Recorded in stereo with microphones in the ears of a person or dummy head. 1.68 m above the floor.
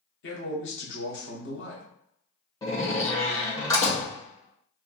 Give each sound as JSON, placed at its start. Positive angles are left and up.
{"t": 0.2, "sound": "a man speaking", "side_deg": 75, "distance_m": 1.5}
{"t": 2.6, "sound": "a door slam", "side_deg": 10, "distance_m": 1.6}